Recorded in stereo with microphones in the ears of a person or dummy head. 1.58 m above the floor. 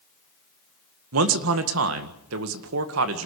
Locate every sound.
1.1 s a man speaking: 80° right, 1.9 m